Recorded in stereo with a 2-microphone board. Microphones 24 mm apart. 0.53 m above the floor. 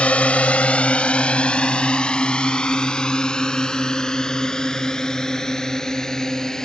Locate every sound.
0.0 s a drone: 65° left (ahead or behind); by 6.7 s 25° left (ahead or behind)